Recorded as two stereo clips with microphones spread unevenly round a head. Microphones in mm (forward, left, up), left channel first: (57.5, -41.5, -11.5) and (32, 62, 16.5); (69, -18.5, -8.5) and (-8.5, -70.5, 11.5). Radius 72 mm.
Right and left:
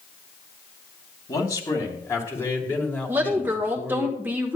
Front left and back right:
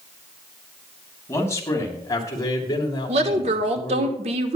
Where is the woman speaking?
170° right, 1.2 m.